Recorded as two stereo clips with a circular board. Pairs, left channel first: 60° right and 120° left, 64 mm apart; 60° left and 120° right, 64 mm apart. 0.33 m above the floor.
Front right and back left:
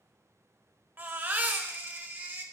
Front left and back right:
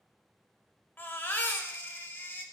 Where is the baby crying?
90° left, 0.8 m.